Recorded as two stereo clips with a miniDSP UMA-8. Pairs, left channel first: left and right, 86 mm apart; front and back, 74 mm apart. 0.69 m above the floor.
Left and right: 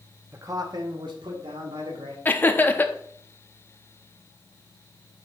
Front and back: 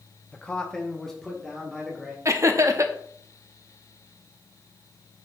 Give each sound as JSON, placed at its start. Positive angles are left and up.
{"t": 0.3, "sound": "a man speaking", "azimuth_deg": -60, "distance_m": 0.8}
{"t": 2.2, "sound": "laughter", "azimuth_deg": 150, "distance_m": 0.8}